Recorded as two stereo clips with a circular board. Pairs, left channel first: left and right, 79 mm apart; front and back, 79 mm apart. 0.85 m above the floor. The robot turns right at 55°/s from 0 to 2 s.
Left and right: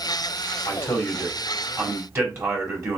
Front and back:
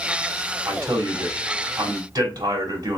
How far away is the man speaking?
About 1.8 m.